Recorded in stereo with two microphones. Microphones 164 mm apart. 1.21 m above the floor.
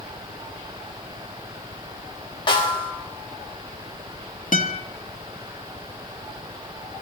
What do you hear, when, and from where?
2.5 s a snare drum: 30° left (ahead or behind), 3 m
4.5 s a guitar: 60° left (ahead or behind), 1.3 m